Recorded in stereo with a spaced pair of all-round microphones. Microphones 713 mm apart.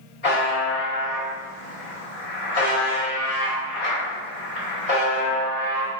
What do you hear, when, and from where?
0.2 s a buzzer: 55° left (ahead or behind), 2.0 m